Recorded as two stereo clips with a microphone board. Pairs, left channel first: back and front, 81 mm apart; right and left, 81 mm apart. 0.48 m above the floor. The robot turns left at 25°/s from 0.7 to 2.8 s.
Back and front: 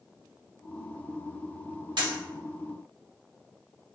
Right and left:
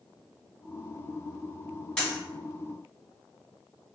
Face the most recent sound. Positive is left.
turn(degrees=-30)